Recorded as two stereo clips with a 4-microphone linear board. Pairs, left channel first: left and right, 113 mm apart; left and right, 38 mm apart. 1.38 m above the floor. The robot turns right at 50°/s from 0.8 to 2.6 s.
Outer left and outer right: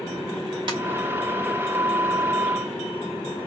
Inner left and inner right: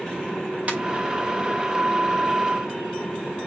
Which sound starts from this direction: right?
A ringtone, at 0.7 s.